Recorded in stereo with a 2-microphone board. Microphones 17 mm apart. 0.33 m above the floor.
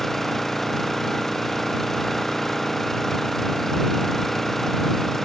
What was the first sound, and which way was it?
An engine running, 15° left (ahead or behind).